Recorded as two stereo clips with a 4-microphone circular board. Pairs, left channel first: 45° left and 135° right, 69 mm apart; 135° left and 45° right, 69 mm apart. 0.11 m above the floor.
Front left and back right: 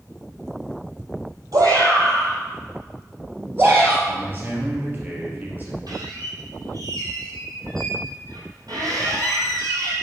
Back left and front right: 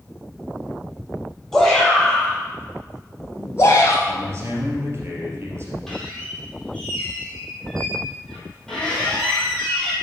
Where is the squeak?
145° right, 3 m.